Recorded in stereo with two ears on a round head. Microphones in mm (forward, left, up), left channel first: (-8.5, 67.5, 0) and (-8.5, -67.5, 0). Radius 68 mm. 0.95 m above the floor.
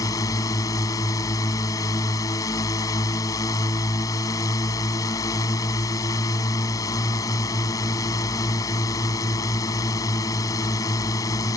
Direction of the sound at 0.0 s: 25° left (ahead or behind).